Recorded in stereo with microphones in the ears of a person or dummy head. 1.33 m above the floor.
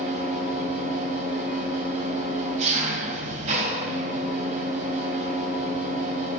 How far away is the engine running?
About 4.5 m.